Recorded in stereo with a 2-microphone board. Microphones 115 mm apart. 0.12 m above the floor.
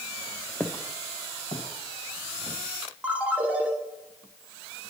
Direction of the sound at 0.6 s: 10° left (ahead or behind).